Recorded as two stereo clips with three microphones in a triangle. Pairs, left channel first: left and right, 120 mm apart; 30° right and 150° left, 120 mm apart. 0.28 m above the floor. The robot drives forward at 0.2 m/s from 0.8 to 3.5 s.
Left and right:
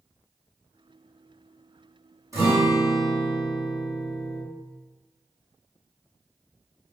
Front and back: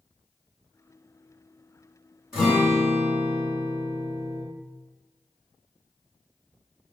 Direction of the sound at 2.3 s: 130° right.